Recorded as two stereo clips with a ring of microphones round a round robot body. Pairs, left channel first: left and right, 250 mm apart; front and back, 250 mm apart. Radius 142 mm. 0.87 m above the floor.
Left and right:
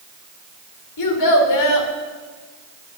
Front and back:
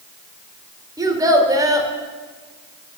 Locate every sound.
1.0 s a child speaking: 105° left, 2 m